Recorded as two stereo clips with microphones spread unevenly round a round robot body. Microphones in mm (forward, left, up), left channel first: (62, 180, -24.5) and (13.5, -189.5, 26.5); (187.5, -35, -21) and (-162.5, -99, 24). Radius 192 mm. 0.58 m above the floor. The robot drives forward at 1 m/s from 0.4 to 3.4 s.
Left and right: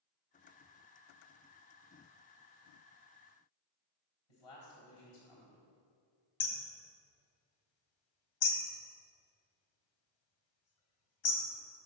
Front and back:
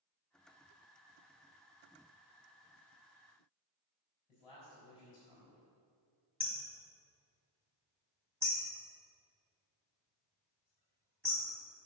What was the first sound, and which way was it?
A man speaking, 95° left.